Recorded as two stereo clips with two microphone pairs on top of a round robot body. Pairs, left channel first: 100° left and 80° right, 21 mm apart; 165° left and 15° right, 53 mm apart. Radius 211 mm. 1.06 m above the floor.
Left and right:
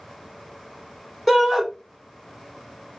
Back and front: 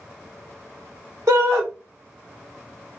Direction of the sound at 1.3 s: 15° left.